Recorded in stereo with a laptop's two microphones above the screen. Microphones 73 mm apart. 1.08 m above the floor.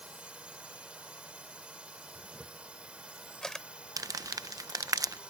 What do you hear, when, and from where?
0.0 s a drone: 15° right (ahead or behind)
2.1 s a camera shutter: 10° left (ahead or behind)
4.0 s crumpling: 55° right (ahead or behind)